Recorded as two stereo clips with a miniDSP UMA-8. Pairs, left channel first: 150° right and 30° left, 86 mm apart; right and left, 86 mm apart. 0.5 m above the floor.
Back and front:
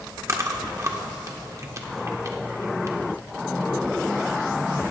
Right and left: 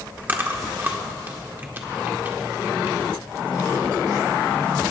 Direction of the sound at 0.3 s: 40° left.